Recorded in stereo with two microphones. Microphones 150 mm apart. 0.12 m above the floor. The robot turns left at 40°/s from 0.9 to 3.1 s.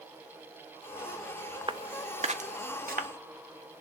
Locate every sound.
1.7 s footsteps: 35° right (ahead or behind), 0.5 m; by 3.1 s 85° right, 1.5 m